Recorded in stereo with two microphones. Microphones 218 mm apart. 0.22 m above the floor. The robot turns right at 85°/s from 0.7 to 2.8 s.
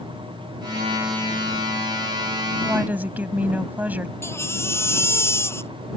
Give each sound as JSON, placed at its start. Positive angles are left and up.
{"t": 2.6, "sound": "a woman speaking", "side_deg": -10}
{"t": 4.2, "sound": "a baby crying", "side_deg": 10}